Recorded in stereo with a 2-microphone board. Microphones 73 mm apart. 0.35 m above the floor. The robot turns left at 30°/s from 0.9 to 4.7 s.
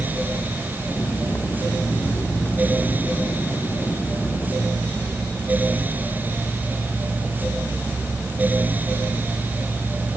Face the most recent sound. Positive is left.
No sound to turn to.